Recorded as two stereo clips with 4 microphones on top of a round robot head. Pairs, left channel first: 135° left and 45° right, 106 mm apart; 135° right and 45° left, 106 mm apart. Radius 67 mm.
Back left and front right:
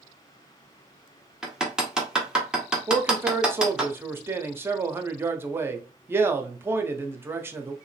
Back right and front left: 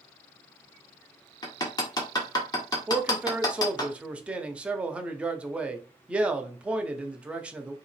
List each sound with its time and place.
1.4 s hammering: 125° right, 1.2 m
2.9 s a man speaking: 20° right, 0.7 m